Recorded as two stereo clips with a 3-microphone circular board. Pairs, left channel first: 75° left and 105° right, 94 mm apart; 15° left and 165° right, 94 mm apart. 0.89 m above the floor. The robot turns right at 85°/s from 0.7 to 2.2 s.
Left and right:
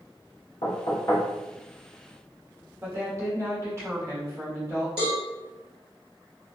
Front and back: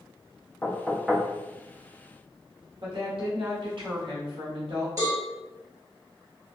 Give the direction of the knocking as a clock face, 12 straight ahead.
9 o'clock.